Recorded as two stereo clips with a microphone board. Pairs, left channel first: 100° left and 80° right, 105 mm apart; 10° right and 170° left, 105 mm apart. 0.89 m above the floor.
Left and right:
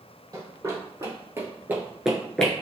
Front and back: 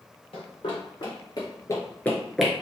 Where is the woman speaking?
I don't hear a woman speaking.